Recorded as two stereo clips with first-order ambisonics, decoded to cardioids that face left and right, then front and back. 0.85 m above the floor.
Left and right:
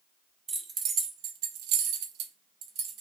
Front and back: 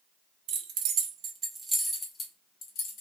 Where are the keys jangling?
155° right, 0.8 m; by 3.0 s 45° right, 0.9 m.